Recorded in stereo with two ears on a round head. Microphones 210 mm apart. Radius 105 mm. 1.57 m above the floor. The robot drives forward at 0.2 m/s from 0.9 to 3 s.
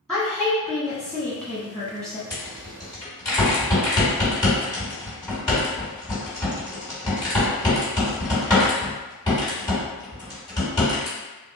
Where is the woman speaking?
Centre (ahead or behind), 1.1 m; by 2.2 s 5° left (ahead or behind), 0.8 m.